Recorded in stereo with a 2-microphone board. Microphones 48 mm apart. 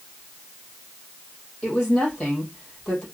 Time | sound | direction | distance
1.6 | a woman speaking | 15° left (ahead or behind) | 3.5 m